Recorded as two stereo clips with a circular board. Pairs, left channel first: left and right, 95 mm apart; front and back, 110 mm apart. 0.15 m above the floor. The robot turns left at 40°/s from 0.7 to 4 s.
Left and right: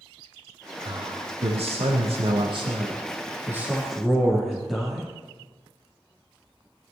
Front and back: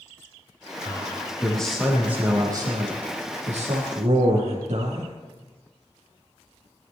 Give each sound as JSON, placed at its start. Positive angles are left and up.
{"t": 0.8, "sound": "a man speaking", "azimuth_deg": -55, "distance_m": 5.0}